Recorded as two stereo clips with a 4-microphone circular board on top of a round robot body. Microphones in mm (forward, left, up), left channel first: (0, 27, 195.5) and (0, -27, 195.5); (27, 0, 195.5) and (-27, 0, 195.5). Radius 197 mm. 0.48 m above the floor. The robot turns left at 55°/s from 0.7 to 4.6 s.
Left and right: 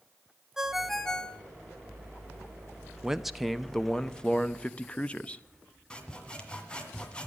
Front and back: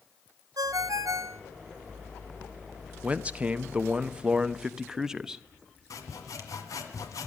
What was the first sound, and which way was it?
A ringtone, 170° right.